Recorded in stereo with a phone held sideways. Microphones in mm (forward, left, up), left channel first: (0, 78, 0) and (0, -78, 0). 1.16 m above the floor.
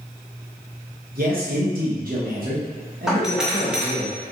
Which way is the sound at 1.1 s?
65° right (ahead or behind).